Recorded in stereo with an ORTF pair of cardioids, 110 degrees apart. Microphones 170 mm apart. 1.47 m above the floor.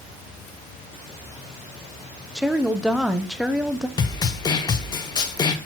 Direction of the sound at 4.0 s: 25° left.